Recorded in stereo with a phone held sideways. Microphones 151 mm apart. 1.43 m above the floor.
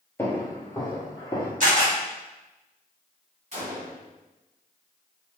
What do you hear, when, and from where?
0.2 s footsteps: 20° left (ahead or behind), 1.6 m; by 1.5 s 35° left (ahead or behind), 1.6 m
1.6 s a camera shutter: 60° right (ahead or behind), 1.7 m
3.5 s a gunshot: 45° right (ahead or behind), 1.8 m